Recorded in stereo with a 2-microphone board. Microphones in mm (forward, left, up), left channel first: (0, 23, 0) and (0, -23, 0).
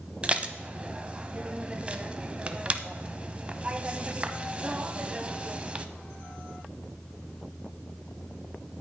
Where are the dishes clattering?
25° right (ahead or behind), 0.7 m.